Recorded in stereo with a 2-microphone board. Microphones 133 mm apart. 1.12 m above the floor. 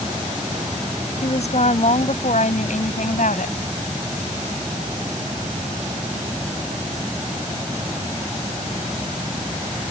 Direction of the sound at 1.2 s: 55° left (ahead or behind).